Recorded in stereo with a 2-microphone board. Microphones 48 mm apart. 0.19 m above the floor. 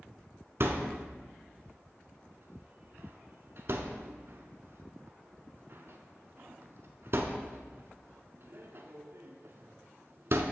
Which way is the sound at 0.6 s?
55° right (ahead or behind).